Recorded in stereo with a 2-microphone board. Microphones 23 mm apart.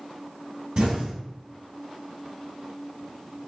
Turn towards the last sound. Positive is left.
turn(degrees=-55)  # may be behind; listen again after turning